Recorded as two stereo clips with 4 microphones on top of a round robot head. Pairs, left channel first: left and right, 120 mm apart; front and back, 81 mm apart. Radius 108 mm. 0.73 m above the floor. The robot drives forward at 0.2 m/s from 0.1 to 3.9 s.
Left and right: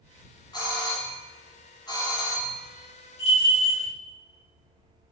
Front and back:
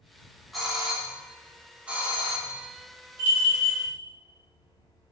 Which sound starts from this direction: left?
A doorbell, at 0.5 s.